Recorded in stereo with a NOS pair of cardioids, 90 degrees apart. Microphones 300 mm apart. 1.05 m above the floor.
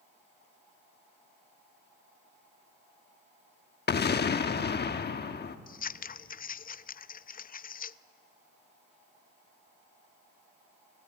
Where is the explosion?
35° left, 1.1 m.